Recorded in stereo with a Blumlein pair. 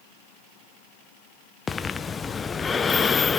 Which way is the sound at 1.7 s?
15° left.